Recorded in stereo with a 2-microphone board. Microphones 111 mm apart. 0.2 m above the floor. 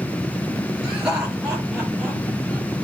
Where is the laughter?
10° right (ahead or behind), 4 m; by 2.7 s 5° right (ahead or behind), 5 m.